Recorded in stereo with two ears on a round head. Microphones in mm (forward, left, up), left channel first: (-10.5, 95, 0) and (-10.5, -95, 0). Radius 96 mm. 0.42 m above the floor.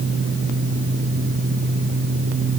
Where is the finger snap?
I don't hear a finger snap.